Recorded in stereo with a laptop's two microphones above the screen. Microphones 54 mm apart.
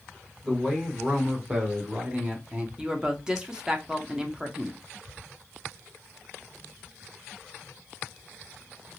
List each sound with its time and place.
0.4 s a man speaking: 15° right (ahead or behind), 1.5 m; by 2.7 s 25° right (ahead or behind), 0.7 m
2.8 s a woman speaking: 15° right (ahead or behind), 0.5 m